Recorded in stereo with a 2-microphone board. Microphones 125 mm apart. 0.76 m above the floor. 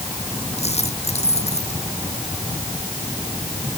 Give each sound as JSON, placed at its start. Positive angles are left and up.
{"t": 0.6, "sound": "a dropped coin", "side_deg": 60}